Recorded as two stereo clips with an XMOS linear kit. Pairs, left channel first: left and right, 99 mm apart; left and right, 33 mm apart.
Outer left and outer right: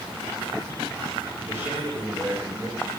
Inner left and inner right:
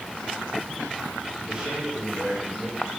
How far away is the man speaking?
About 8.5 m.